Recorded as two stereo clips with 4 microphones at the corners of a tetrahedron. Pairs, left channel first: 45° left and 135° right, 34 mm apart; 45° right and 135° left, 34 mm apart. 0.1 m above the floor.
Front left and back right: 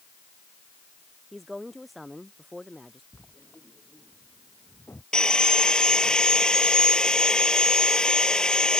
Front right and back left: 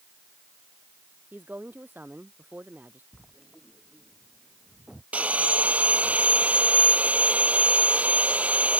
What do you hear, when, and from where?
1.3 s a woman speaking: 130° left; by 3.0 s 135° left
3.1 s writing: 55° left
5.1 s sawing: 105° left